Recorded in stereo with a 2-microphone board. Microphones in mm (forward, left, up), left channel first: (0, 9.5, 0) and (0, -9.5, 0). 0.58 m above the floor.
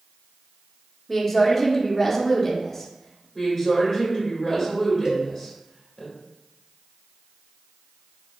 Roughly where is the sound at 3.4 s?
Centre.